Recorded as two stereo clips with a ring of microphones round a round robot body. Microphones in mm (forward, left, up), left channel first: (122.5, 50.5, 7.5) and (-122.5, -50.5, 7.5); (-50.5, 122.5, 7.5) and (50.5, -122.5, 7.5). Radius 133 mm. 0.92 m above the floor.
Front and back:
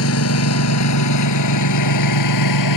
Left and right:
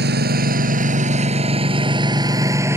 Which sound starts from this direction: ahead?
A lawn mower, at 0.0 s.